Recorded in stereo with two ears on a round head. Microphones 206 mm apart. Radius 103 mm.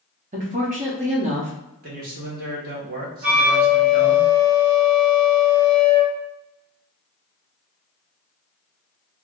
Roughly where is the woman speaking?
Right.